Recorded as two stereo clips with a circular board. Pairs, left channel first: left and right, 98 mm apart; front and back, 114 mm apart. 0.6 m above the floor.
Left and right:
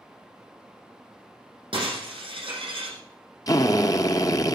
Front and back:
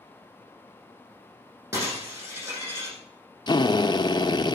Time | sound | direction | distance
1.7 | breaking glass | 120° right | 7.5 m
3.5 | a drill | 40° left | 0.8 m